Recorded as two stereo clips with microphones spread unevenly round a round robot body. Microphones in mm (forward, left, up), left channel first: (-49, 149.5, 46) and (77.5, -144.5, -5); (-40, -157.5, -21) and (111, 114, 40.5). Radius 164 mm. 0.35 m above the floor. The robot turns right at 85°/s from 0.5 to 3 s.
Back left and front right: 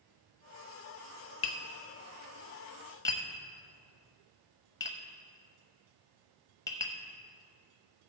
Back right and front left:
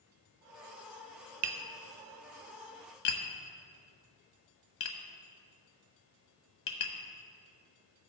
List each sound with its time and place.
1.4 s tapping: 60° left, 0.9 m; by 6.9 s 165° right, 0.9 m